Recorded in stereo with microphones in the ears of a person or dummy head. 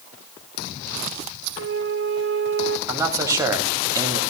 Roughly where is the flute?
Right.